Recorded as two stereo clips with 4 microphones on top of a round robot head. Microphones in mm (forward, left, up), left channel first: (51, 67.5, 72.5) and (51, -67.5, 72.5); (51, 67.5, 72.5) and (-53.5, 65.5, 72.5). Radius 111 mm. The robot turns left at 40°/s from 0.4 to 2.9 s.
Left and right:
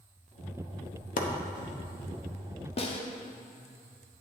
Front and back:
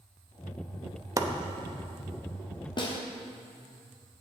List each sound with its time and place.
1.2 s chopping: 120° left, 0.9 m; by 1.3 s 115° left, 0.9 m
2.8 s a snare drum: 45° left, 1.1 m; by 3.0 s 40° left, 1.1 m